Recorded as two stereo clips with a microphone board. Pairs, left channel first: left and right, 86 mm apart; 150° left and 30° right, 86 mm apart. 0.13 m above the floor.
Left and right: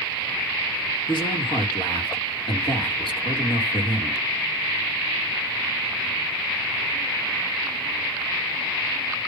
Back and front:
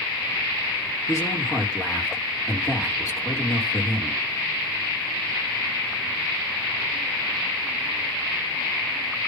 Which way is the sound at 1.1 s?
100° left.